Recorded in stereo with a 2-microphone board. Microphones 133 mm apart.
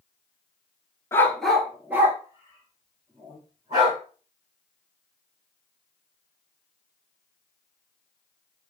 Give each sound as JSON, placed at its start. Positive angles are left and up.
{"t": 1.1, "sound": "a dog barking", "side_deg": 20, "distance_m": 0.7}